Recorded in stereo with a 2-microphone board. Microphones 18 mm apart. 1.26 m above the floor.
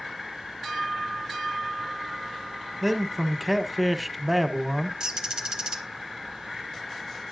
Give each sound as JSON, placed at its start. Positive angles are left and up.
{"t": 2.8, "sound": "a man speaking", "side_deg": 0, "distance_m": 0.9}
{"t": 5.0, "sound": "a bird", "side_deg": -30, "distance_m": 1.2}